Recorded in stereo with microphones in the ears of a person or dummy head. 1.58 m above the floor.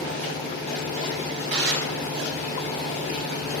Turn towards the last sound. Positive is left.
turn(degrees=-45)  # may be behind; listen again after turning